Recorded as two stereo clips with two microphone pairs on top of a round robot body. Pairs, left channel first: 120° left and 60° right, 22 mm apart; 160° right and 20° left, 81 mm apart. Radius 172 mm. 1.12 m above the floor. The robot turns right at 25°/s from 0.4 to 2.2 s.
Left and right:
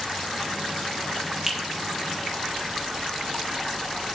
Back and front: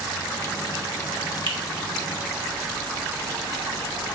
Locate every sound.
1.5 s a finger snap: 10° left, 1.2 m; by 1.6 s 15° left, 1.2 m